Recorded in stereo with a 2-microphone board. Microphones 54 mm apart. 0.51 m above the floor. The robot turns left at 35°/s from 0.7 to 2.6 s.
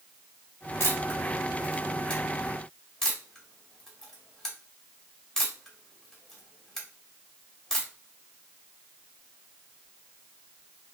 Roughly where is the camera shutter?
Left.